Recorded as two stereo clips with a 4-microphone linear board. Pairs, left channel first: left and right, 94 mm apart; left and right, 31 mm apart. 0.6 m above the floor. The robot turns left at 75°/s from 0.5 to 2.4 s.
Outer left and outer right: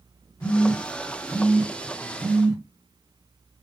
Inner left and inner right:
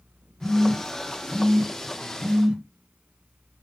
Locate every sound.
0.4 s a phone buzzing: 30° left (ahead or behind), 0.8 m; by 2.6 s 20° right (ahead or behind), 0.8 m